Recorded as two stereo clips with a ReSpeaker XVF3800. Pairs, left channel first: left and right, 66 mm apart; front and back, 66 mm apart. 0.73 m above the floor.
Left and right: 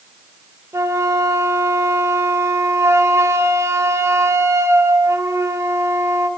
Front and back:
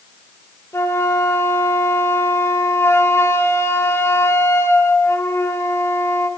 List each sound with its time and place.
0.7 s a flute: 50° right, 2 m